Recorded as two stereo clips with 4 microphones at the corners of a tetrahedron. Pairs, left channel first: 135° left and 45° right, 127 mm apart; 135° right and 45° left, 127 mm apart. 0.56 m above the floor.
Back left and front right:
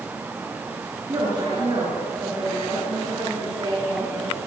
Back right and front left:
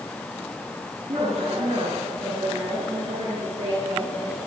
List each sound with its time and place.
1.1 s a woman speaking: 10° left, 8.5 m; by 4.4 s 15° left, 12.5 m